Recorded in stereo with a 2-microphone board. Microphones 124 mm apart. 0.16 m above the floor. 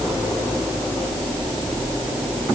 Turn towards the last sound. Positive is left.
No sound to turn to.